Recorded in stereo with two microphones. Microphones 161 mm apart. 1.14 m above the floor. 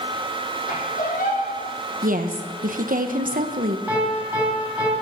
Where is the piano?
10° right (ahead or behind), 7.5 m.